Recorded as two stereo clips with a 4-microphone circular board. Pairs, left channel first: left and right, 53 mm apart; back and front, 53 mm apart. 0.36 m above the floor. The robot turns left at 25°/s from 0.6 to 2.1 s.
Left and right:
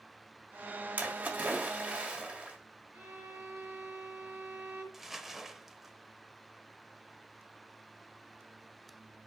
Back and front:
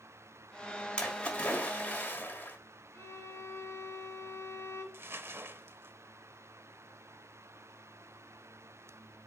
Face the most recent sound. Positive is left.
turn(degrees=-5)